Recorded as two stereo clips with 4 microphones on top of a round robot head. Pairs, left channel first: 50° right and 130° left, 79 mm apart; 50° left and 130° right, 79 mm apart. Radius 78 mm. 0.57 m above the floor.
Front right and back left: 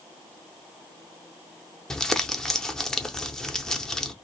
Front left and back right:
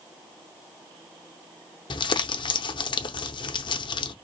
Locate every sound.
1.9 s crumpling: 30° left, 0.8 m